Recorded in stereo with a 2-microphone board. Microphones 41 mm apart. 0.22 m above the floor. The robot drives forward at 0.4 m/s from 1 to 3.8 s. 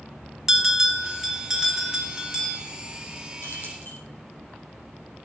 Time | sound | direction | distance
0.5 | a bell | 10° right (ahead or behind) | 1.9 m
3.4 | keys jangling | 60° left (ahead or behind) | 5 m